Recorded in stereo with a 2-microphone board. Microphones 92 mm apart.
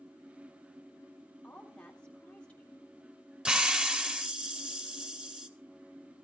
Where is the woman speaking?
15° left (ahead or behind), 3 m.